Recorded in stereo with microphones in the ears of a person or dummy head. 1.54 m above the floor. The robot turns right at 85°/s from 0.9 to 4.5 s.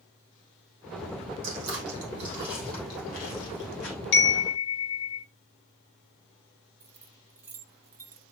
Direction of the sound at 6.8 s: 15° right (ahead or behind).